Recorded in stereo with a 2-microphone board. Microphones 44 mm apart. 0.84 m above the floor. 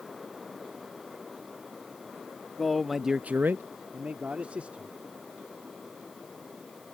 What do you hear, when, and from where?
2.6 s a man speaking: 5° left (ahead or behind); by 5.0 s 30° right (ahead or behind)